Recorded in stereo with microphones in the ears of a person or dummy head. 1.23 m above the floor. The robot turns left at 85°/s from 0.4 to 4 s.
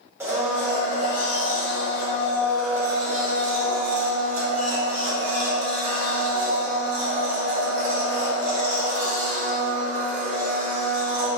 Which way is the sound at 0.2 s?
170° right.